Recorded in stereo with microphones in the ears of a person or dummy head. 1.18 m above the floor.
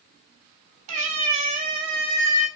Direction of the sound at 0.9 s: 50° right (ahead or behind).